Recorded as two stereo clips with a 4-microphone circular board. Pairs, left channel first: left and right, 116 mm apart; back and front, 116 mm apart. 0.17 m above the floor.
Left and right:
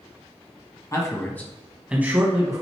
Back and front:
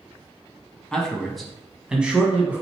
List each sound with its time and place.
0.9 s a man speaking: 105° left, 1.3 m; by 2.6 s 65° right, 1.4 m